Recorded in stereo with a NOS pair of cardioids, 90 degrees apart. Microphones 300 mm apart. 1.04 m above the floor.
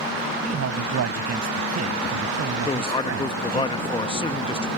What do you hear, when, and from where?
0.4 s a man speaking: 55° right
2.6 s a man speaking: 15° left